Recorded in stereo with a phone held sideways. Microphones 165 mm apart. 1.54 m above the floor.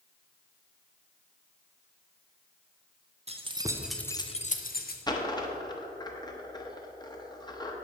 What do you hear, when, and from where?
3.3 s keys jangling: 40° right (ahead or behind), 0.8 m; by 5.0 s 65° left (ahead or behind), 0.9 m
5.1 s a dropped coin: 25° left (ahead or behind), 0.9 m